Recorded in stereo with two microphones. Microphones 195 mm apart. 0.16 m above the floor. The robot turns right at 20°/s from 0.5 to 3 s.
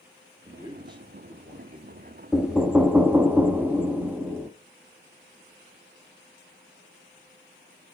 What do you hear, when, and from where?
0.5 s a man speaking: 160° right, 2.5 m; by 2.2 s 125° right, 2.5 m
2.3 s knocking: 5° right (ahead or behind), 0.7 m; by 4.5 s 10° right (ahead or behind), 0.7 m